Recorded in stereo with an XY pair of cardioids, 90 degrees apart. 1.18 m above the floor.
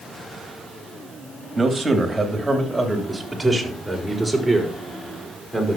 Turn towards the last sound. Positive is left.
turn(degrees=5)